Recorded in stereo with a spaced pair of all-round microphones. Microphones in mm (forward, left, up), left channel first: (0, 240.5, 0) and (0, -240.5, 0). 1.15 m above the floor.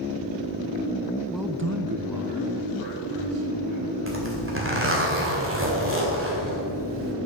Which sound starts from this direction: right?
A zipper, at 4.1 s.